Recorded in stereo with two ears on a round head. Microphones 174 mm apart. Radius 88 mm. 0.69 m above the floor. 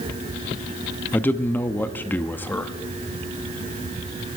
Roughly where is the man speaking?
Centre.